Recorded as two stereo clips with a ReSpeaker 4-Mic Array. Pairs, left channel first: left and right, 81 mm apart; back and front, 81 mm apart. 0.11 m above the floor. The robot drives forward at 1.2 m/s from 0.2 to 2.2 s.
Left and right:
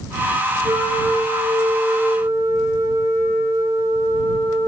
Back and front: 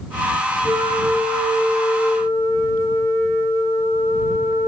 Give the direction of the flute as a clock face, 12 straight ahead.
4 o'clock.